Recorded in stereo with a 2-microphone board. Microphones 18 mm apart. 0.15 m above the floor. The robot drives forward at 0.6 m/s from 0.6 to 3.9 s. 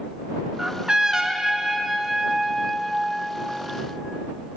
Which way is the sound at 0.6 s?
45° right (ahead or behind).